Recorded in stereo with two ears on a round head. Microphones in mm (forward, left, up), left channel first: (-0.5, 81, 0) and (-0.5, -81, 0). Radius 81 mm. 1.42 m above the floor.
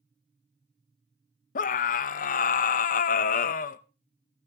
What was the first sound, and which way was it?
A scream, 50° left (ahead or behind).